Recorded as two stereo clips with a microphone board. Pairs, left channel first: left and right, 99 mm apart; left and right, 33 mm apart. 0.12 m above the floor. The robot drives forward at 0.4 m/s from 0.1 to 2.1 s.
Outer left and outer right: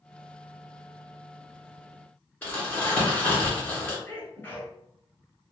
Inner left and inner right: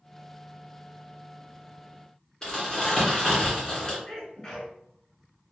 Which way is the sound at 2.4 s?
15° left (ahead or behind).